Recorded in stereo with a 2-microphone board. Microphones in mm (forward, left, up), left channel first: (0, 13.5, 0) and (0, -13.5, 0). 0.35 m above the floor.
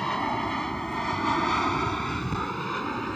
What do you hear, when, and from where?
0.0 s an aircraft: 15° left (ahead or behind); by 3.1 s 5° left (ahead or behind)